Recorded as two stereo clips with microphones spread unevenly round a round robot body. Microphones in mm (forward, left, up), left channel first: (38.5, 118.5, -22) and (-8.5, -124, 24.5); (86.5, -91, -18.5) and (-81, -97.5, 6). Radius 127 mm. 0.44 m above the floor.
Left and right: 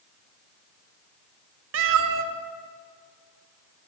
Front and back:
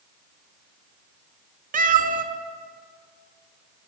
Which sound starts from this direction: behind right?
A cat meowing, at 1.7 s.